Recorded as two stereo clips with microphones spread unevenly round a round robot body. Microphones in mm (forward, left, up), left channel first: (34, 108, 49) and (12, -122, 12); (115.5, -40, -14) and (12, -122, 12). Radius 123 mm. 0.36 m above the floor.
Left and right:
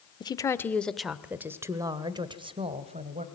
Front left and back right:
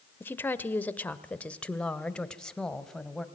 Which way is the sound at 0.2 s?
15° left.